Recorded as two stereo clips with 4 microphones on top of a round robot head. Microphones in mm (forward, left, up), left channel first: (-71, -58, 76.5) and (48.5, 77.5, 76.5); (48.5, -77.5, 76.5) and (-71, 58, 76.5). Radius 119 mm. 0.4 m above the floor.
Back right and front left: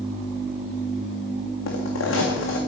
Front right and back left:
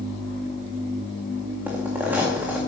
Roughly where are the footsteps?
Behind right.